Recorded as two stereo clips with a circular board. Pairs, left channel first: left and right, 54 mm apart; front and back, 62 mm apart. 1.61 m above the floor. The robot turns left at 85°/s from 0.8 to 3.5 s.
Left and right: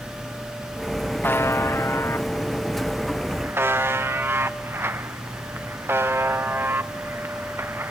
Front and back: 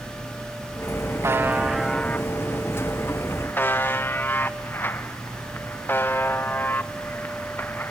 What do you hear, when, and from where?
1.2 s a buzzer: 140° left, 0.5 m; by 7.9 s 50° right, 0.5 m